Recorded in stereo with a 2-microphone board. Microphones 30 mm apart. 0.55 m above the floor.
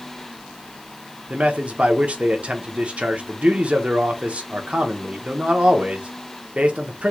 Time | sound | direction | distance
1.3 | a man speaking | 45° right (ahead or behind) | 0.8 m